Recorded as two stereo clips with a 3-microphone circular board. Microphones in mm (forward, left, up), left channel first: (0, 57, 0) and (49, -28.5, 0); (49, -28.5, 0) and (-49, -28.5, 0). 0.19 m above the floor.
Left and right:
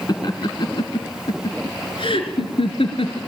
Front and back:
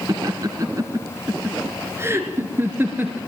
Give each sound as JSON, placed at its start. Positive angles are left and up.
{"t": 0.1, "sound": "laughter", "azimuth_deg": 150, "distance_m": 1.9}